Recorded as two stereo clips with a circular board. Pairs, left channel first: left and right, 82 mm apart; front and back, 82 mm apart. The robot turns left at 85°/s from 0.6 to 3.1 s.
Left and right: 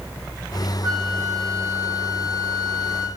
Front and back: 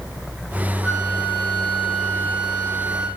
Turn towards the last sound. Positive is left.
turn(degrees=40)